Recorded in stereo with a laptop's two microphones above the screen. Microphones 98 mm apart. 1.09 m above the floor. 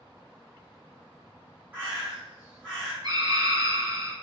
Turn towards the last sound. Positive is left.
turn(degrees=-45)  # may be behind; listen again after turning